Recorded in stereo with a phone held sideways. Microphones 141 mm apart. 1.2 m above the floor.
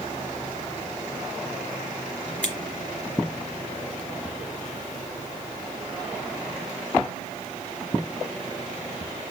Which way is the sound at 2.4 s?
10° left (ahead or behind).